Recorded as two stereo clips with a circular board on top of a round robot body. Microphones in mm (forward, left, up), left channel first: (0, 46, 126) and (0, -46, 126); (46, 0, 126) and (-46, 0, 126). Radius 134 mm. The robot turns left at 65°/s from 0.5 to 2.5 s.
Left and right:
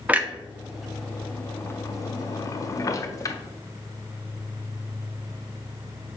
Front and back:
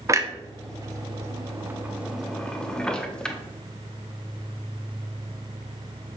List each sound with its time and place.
0.1 s a clunk: 155° right, 0.7 m; by 3.4 s 75° left, 0.7 m